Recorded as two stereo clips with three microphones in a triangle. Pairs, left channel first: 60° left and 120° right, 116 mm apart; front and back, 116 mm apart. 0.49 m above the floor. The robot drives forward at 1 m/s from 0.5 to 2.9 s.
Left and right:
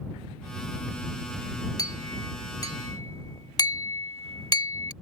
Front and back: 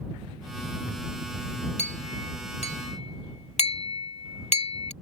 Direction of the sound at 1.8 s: 5° left.